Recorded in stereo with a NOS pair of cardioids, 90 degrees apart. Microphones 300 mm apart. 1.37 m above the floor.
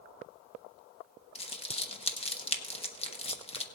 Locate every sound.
1.4 s crumpling: 20° left, 1.3 m